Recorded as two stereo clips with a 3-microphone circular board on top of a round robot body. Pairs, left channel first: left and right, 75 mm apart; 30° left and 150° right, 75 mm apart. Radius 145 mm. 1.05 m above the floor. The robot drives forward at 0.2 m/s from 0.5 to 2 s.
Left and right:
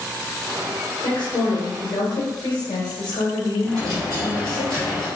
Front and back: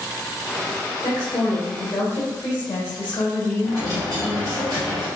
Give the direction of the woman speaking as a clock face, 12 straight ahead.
9 o'clock.